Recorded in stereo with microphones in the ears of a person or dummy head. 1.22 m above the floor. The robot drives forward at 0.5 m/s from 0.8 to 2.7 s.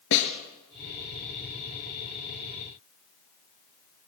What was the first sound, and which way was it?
A snare drum, 65° left (ahead or behind).